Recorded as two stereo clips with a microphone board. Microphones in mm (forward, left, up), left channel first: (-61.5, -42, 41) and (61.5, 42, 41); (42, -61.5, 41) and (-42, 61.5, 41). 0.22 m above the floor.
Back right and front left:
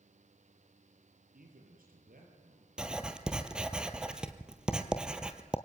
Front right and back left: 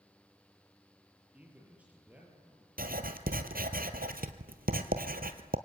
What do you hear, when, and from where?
1.3 s a man speaking: 45° left, 6.5 m
2.8 s writing: 120° left, 1.4 m